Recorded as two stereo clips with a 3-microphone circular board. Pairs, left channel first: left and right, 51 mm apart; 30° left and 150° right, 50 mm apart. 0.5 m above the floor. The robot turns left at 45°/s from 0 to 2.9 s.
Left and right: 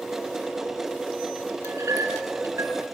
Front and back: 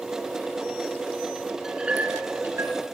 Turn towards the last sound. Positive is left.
turn(degrees=-125)